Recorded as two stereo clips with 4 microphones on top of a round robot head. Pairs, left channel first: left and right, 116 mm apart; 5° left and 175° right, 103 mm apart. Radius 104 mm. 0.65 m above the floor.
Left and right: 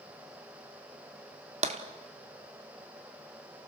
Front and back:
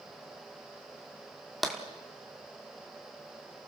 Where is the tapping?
85° right, 1.5 m.